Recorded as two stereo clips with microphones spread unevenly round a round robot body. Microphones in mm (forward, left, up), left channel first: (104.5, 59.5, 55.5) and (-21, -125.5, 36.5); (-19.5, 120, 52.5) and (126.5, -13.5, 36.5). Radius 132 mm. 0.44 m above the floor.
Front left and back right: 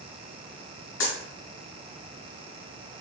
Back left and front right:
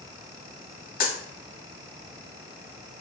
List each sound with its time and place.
1.0 s a dropped coin: 95° left, 1.2 m